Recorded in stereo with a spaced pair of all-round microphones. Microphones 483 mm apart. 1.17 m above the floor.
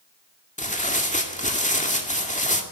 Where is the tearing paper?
15° left (ahead or behind), 2 m.